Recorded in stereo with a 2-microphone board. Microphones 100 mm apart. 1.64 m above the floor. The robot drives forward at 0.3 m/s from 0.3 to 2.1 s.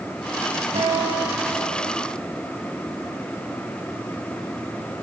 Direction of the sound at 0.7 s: 75° right (ahead or behind).